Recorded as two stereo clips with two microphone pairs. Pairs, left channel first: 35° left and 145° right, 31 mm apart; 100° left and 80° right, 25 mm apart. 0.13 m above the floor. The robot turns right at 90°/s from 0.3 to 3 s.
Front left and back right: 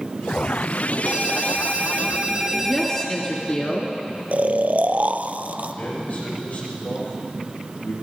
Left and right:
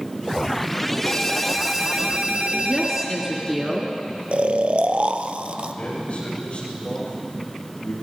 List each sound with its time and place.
1.1 s a ringtone: 150° left, 1.7 m; by 3.1 s 35° right, 1.7 m
2.6 s a woman speaking: 30° right, 2.0 m; by 3.9 s 5° left, 2.0 m
4.3 s snoring: 115° right, 0.5 m
5.7 s a man speaking: 60° left, 7 m